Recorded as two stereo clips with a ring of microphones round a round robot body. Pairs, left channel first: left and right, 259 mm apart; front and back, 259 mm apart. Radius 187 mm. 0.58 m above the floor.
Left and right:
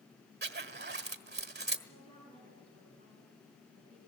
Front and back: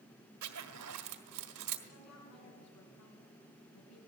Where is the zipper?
145° right, 1.4 m.